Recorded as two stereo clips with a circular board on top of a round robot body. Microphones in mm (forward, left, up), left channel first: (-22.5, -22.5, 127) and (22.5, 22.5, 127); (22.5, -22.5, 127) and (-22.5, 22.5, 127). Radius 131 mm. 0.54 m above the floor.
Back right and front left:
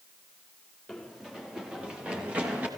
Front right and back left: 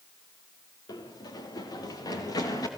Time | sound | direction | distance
0.9 | running footsteps | 45° right | 4 m